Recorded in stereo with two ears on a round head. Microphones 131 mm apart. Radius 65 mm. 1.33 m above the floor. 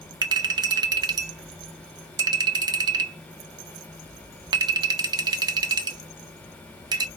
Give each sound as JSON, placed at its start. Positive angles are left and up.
{"t": 0.2, "sound": "a clink", "side_deg": -30, "distance_m": 0.7}